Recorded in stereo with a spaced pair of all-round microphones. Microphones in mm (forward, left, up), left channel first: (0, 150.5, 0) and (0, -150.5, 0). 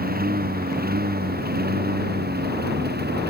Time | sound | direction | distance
0.0 | a lawn mower | 30° right (ahead or behind) | ?